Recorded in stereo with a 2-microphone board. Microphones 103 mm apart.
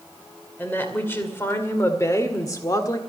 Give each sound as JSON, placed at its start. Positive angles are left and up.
{"t": 0.6, "sound": "a woman speaking", "side_deg": 20, "distance_m": 2.5}